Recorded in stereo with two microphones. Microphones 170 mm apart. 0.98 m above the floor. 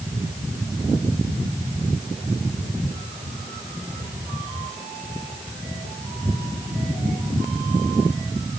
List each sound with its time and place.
Only background noise.